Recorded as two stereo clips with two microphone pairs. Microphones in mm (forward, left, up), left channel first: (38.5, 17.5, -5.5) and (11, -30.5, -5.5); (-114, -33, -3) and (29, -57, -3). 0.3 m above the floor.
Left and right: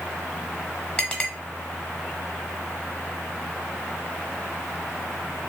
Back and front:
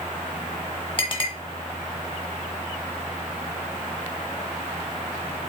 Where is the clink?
125° left, 1.0 m.